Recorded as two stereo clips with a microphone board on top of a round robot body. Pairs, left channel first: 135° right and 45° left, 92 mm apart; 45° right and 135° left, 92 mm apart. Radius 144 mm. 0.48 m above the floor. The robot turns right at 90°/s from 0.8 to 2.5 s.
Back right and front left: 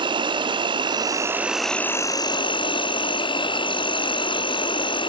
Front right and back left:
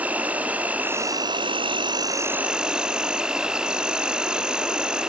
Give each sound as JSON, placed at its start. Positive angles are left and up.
{"t": 0.0, "sound": "an insect", "azimuth_deg": 60, "distance_m": 0.8}